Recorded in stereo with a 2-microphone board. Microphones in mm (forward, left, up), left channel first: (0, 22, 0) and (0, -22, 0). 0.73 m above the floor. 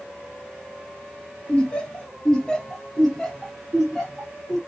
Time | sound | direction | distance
1.5 | laughter | 25° left (ahead or behind) | 0.9 m